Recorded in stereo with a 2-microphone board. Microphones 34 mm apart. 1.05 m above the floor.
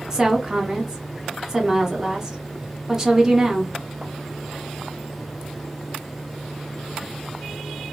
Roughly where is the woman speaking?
Centre.